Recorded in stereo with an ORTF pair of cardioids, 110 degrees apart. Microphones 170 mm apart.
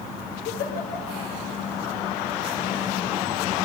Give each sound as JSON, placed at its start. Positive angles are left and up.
{"t": 0.5, "sound": "a giggle", "azimuth_deg": 70, "distance_m": 5.0}